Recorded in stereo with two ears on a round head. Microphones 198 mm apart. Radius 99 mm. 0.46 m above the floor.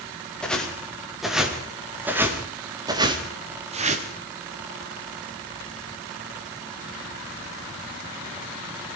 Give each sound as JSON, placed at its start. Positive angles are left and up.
{"t": 0.4, "sound": "footsteps", "side_deg": 5, "distance_m": 6.0}